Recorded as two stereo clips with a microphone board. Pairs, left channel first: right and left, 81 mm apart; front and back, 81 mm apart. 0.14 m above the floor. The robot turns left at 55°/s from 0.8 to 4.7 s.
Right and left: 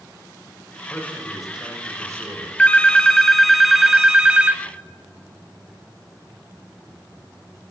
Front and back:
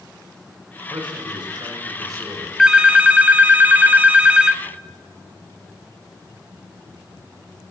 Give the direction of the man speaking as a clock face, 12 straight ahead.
5 o'clock.